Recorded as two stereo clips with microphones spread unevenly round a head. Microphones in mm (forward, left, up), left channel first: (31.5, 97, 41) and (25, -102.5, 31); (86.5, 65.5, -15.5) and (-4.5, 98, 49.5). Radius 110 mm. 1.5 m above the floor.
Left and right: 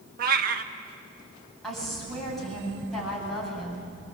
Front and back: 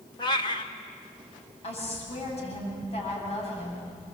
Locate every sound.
0.2 s a cat meowing: 110° right, 0.9 m
1.6 s a woman speaking: straight ahead, 8.5 m